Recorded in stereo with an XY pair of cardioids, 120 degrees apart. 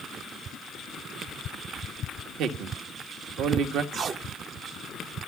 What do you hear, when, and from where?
2.4 s a man speaking: 70° right, 1.4 m
3.9 s tape being pulled: 50° right, 0.7 m